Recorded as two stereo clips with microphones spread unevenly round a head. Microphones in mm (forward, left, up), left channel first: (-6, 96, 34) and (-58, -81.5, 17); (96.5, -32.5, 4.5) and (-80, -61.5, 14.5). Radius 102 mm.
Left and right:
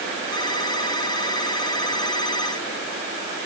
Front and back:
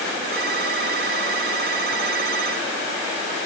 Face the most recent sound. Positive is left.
turn(degrees=140)